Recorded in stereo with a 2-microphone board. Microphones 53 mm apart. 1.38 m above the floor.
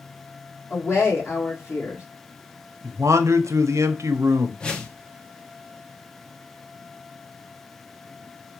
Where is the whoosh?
15° left (ahead or behind), 0.6 m.